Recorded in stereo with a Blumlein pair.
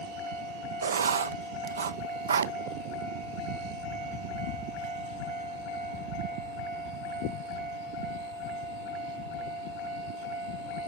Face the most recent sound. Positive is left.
turn(degrees=-65)